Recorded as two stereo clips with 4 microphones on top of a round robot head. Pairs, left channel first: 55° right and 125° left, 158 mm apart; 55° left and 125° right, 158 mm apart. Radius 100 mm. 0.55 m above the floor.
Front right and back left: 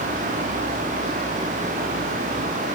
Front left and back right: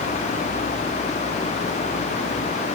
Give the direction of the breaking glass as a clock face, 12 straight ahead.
No breaking glass in this recording.